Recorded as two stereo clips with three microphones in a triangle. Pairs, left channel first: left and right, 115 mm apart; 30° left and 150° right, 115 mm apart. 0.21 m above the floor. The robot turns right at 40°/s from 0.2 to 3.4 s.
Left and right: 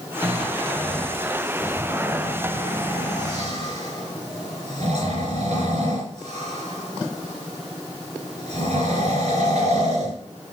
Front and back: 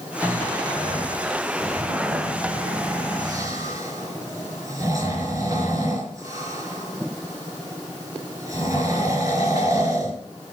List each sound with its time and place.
0.2 s snoring: 140° left, 4 m; by 10.2 s 95° right, 4 m